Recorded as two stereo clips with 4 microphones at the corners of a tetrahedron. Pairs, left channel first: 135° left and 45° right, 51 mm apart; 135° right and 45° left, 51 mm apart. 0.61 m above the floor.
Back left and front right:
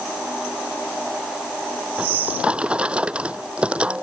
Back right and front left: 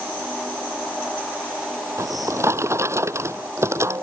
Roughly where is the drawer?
Ahead.